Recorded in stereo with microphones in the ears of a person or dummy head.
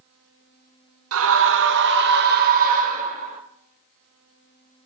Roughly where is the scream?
Right.